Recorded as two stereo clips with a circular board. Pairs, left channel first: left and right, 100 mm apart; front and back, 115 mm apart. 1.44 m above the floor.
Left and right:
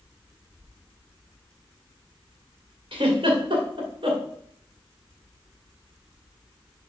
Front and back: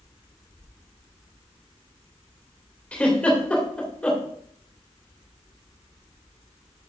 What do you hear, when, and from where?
2.9 s a giggle: 80° right, 2.5 m